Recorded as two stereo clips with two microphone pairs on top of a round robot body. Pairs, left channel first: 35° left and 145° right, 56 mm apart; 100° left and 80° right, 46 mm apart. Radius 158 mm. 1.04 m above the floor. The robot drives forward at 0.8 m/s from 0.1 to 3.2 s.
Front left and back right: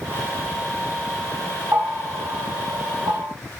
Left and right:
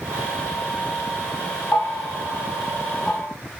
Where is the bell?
165° left, 0.7 m; by 3.3 s 175° left, 1.9 m.